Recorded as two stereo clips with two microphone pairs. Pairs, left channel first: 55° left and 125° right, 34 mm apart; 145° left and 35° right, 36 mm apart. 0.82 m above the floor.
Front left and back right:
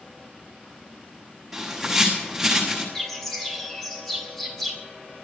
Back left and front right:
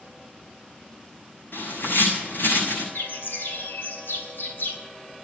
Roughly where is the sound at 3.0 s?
Behind left.